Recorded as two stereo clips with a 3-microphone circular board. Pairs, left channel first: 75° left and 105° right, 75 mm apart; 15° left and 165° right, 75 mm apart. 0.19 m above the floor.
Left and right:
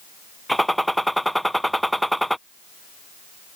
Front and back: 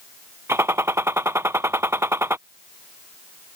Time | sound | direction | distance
0.5 | a gunshot | 165° left | ?